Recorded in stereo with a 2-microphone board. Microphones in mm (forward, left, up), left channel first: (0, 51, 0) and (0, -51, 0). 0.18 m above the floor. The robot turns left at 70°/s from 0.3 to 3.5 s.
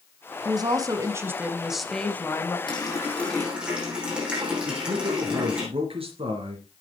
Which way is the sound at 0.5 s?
85° right.